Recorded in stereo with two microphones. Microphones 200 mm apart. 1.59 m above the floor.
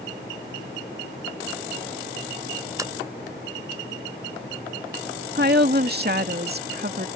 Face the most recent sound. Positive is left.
turn(degrees=-55)  # may be behind; listen again after turning